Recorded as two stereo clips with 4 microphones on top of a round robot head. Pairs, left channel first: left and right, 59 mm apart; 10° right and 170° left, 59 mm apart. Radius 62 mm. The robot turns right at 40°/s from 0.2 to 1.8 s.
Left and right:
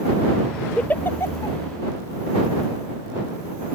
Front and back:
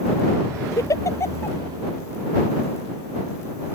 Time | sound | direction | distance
0.8 | a giggle | 15° left | ?